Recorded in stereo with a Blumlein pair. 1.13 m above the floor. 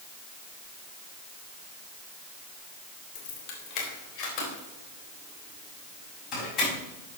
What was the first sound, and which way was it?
Keys jangling, 45° left.